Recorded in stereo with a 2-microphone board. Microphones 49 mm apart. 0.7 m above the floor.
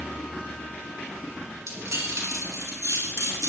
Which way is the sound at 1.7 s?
80° right.